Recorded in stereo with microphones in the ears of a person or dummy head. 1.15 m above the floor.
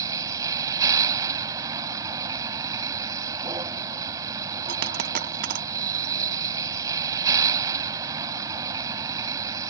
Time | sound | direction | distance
0.0 | a vehicle | 25° right (ahead or behind) | ?
4.7 | a dropped coin | 60° right (ahead or behind) | ?